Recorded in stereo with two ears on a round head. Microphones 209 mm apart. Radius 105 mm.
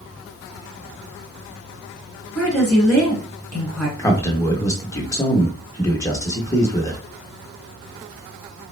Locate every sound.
2.4 s a woman speaking: 5° right (ahead or behind), 1.8 m
4.0 s a man speaking: 15° left (ahead or behind), 0.8 m